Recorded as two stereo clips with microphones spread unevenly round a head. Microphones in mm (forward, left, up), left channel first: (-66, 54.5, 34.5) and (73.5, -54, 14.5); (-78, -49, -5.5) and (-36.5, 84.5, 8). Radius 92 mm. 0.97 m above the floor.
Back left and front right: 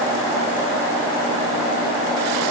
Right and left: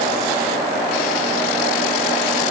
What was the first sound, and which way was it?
Only background noise.